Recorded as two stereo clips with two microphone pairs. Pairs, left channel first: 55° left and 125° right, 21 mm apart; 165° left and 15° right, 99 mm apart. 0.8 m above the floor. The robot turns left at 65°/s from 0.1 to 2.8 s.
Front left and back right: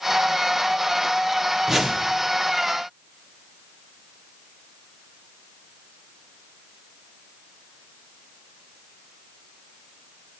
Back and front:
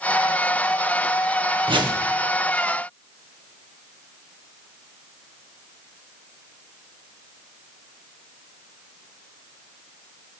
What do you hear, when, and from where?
1.7 s a whoosh: 50° right, 0.7 m; by 2.0 s 75° right, 0.7 m